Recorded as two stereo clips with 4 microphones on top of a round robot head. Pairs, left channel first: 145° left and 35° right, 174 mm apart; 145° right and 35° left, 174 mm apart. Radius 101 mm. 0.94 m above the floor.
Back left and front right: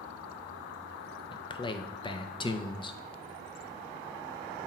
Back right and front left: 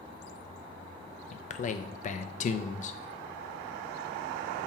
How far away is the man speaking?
About 0.6 m.